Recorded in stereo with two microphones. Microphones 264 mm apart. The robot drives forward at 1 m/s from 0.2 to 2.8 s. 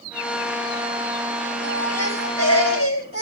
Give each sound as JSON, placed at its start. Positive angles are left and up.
{"t": 1.6, "sound": "a baby crying", "side_deg": 70, "distance_m": 4.5}